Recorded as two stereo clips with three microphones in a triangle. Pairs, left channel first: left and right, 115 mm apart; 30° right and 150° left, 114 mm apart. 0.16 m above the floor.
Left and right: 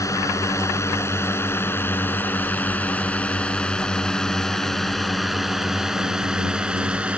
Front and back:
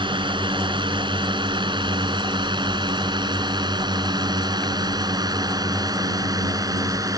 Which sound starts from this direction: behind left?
A drone, at 0.0 s.